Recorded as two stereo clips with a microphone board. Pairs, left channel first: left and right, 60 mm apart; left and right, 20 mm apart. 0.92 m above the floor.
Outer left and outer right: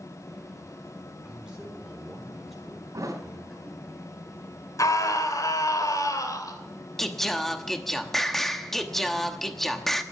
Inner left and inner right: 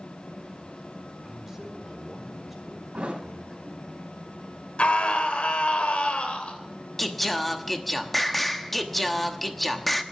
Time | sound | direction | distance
1.2 | a man speaking | 15° right (ahead or behind) | 3.5 m
2.9 | a thud | 70° right (ahead or behind) | 3.5 m
4.8 | a scream | 75° left (ahead or behind) | 3.5 m
7.0 | singing | 5° left (ahead or behind) | 1.0 m